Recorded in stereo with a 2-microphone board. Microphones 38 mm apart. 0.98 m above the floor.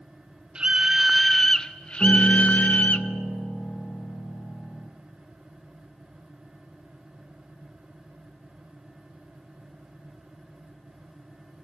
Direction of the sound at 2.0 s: 50° left (ahead or behind).